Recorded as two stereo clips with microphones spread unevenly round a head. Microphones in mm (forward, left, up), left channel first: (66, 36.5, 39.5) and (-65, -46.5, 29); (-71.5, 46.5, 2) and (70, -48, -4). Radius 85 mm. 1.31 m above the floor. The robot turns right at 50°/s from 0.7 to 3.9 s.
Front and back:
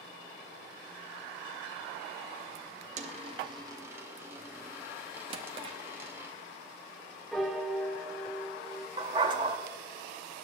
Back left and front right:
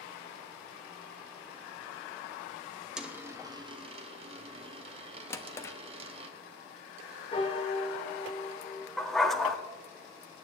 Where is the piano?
115° left, 1.0 m.